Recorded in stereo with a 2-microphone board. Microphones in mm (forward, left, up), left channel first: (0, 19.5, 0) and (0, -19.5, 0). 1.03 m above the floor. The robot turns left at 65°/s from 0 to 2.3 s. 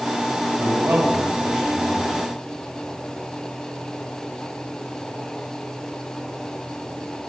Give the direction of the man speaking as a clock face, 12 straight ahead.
3 o'clock.